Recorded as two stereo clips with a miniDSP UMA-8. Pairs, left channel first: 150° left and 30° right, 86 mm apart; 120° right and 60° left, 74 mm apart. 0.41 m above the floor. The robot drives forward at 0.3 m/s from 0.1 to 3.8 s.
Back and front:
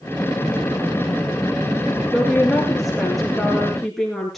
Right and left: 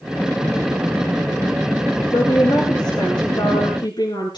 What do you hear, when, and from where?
2.1 s a woman speaking: 115° right, 5.5 m; by 4.4 s 120° right, 6 m